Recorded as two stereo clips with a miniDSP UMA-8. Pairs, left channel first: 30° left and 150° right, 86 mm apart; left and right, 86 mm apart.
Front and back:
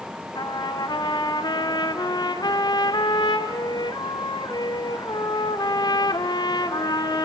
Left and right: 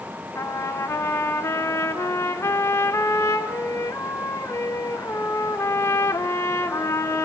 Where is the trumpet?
40° left, 2 m.